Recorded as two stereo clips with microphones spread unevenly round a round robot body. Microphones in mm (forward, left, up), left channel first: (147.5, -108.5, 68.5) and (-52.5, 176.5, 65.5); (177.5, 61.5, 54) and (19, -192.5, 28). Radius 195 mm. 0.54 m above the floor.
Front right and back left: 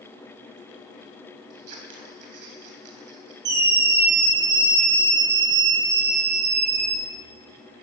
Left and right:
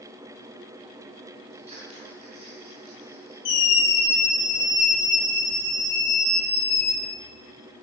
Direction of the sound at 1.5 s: 165° left.